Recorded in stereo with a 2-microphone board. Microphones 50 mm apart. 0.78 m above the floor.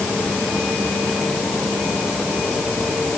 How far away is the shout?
I don't hear a shout.